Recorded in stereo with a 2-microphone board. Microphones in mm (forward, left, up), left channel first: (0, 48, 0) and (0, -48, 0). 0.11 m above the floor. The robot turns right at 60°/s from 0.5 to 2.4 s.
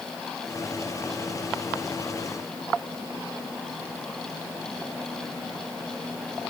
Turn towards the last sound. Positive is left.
No sound to turn to.